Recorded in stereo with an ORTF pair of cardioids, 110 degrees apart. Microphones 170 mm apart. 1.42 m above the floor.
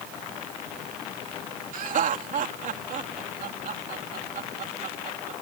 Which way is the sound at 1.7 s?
50° right.